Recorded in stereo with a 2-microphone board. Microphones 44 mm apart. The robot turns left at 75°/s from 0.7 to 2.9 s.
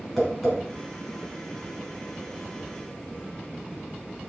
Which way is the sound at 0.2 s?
5° left (ahead or behind).